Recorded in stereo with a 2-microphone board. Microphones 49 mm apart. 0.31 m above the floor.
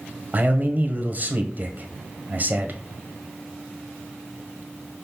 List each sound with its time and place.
0.3 s a man speaking: 40° right (ahead or behind), 1.5 m